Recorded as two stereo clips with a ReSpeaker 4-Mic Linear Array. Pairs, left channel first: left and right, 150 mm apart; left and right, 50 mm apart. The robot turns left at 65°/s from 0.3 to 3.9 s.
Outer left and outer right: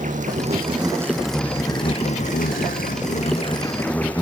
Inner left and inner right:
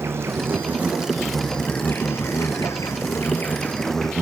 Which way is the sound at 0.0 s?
115° right.